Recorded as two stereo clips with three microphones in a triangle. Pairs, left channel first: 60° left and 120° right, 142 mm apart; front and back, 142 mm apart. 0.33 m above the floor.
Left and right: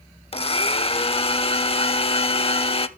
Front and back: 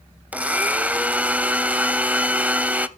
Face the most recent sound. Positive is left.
turn(degrees=100)